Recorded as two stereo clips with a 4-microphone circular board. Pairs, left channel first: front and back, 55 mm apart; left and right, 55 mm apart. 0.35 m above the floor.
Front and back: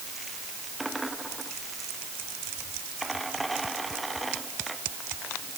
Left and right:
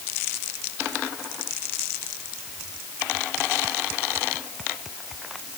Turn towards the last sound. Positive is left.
No sound to turn to.